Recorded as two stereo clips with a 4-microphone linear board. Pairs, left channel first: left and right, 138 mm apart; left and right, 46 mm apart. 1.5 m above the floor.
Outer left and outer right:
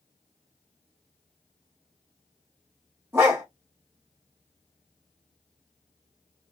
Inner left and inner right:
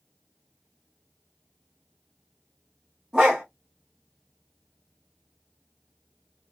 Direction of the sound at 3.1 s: 20° right (ahead or behind).